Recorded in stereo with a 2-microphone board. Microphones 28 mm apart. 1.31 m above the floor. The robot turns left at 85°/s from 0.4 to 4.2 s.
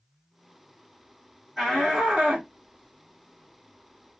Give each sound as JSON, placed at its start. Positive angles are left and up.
{"t": 1.6, "sound": "a shout", "side_deg": 10, "distance_m": 1.4}